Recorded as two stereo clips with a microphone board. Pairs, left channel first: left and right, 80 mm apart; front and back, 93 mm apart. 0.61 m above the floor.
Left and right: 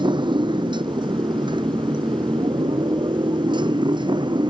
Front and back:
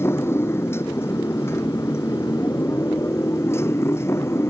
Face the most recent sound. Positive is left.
turn(degrees=-65)